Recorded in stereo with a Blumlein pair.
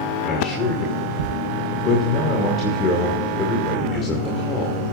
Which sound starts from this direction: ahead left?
A man speaking, at 0.2 s.